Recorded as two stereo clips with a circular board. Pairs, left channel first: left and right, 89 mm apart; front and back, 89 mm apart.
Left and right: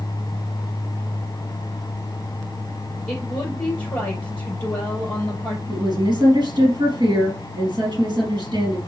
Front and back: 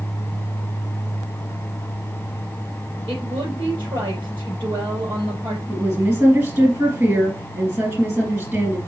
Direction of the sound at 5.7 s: 120° right.